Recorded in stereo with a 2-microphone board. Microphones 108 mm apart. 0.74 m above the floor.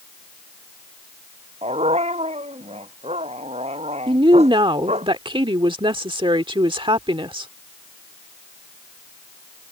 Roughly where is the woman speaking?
Right.